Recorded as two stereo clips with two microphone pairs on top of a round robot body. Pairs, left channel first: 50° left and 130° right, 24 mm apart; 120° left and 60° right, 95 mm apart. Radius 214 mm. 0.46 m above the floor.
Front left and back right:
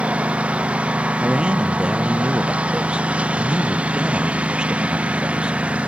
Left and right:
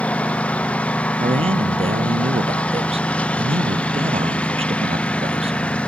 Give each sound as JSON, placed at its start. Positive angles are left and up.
{"t": 0.0, "sound": "a lawn mower", "azimuth_deg": -160}
{"t": 1.2, "sound": "a man speaking", "azimuth_deg": -80}